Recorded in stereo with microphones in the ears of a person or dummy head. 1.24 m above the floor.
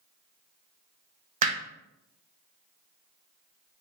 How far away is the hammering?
About 0.6 m.